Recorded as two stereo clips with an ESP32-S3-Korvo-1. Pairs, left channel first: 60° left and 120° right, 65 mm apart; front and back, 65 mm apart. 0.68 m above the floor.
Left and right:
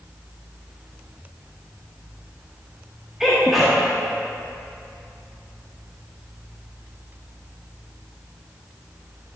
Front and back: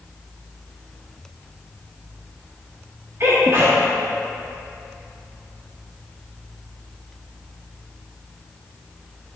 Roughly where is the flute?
No flute in this recording.